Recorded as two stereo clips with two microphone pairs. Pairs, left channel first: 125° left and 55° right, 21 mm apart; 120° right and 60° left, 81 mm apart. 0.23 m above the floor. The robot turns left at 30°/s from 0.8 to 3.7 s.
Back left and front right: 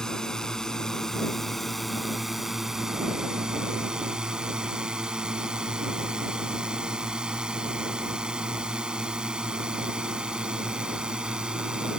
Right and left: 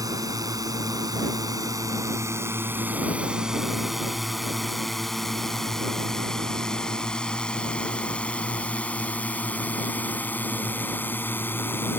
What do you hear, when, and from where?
0.0 s a drone: 75° left; by 12.0 s 70° right